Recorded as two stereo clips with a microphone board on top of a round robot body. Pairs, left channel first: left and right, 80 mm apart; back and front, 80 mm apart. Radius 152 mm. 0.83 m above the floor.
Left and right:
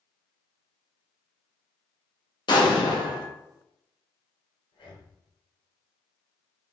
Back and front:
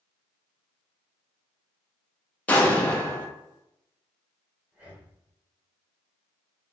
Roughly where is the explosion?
Left.